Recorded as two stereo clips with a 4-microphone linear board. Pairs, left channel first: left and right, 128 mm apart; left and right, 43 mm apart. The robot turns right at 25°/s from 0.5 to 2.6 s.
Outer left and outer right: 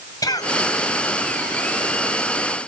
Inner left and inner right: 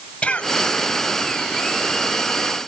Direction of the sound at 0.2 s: 25° left (ahead or behind).